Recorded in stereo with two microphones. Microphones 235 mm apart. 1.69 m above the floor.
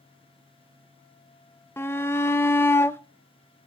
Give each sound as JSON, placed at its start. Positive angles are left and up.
{"t": 1.8, "sound": "a shout", "side_deg": 10, "distance_m": 0.5}